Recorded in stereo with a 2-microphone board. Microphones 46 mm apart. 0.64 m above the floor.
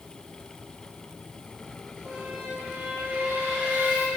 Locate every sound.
2.0 s a squeak: 40° right (ahead or behind), 1.1 m